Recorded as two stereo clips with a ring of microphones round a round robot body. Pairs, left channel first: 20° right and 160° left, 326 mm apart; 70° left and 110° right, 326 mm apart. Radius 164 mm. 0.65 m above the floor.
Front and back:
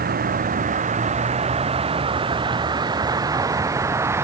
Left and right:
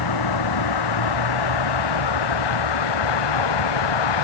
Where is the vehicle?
95° left; by 4.2 s 75° left.